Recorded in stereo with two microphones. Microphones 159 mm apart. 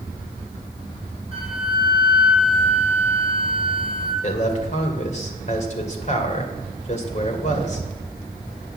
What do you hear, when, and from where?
1.3 s a flute: 50° left (ahead or behind), 5.5 m
4.2 s a man speaking: 50° left (ahead or behind), 2 m